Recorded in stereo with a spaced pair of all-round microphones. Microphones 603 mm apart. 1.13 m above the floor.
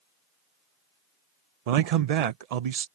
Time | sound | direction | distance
1.7 | a man speaking | 80° right | ?